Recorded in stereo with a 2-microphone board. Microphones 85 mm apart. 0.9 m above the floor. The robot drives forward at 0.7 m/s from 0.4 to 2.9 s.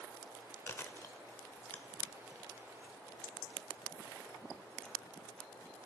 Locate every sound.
0.7 s chewing: 25° left (ahead or behind), 0.6 m; by 5.8 s 10° left (ahead or behind), 1.5 m